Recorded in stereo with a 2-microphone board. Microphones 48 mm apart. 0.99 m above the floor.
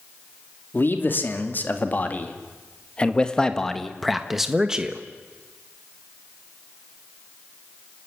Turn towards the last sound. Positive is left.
turn(degrees=-20)  # may be behind; listen again after turning